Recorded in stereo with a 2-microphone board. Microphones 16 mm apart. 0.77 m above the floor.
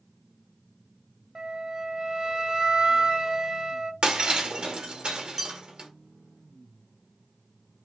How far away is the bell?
About 1.2 m.